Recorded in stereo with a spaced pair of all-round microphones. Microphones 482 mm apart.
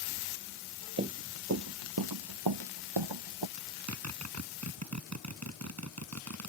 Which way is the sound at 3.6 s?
30° right (ahead or behind).